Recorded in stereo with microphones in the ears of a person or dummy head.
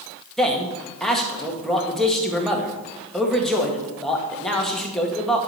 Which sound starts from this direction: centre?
A man speaking, at 0.4 s.